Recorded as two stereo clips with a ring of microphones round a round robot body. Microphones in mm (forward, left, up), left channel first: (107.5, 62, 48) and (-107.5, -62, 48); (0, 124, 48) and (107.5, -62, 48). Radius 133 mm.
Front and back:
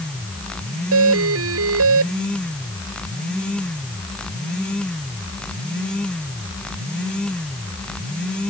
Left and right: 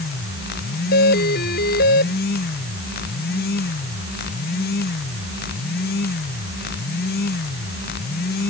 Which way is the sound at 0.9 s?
175° left.